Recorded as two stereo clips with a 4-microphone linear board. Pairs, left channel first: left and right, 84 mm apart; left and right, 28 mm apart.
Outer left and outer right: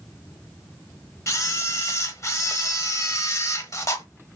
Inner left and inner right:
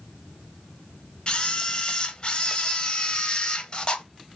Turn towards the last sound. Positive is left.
turn(degrees=35)  # may be behind; listen again after turning